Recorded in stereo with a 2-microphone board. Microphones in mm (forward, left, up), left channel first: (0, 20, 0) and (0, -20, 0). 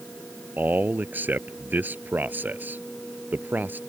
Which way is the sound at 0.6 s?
55° right (ahead or behind).